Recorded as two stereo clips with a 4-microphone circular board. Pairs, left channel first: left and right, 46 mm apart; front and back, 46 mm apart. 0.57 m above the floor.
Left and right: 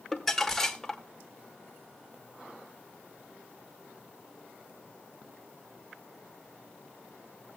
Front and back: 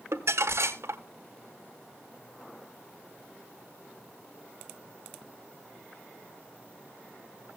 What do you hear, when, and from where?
0.1 s crumpling: 170° left, 1.4 m